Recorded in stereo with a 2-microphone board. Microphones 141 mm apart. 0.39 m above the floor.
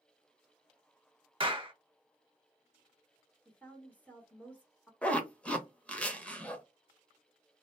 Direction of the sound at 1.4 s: 40° right (ahead or behind).